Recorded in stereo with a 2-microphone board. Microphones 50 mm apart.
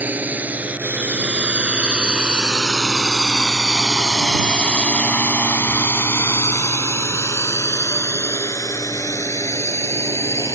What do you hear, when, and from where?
0.0 s a drone: 35° right (ahead or behind); by 10.6 s 80° left